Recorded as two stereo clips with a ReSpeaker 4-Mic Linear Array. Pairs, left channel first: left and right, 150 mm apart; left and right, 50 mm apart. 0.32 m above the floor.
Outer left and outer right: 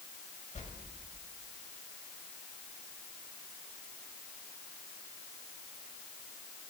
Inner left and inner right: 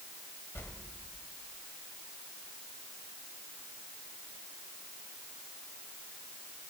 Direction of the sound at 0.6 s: 50° left (ahead or behind).